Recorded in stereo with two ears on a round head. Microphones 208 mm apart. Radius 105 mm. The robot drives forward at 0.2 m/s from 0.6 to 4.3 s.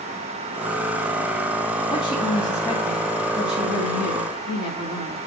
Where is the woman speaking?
20° left (ahead or behind), 3 m.